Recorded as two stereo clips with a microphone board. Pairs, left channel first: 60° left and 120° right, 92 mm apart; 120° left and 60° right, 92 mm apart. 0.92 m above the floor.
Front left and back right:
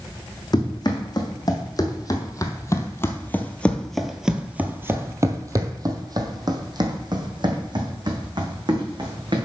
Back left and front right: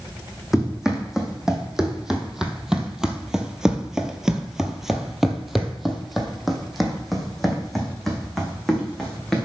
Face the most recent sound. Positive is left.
turn(degrees=-150)